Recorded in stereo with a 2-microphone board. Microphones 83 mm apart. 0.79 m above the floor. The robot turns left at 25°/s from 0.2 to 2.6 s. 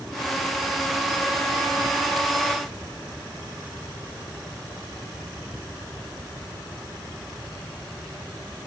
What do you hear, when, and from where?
Only background noise.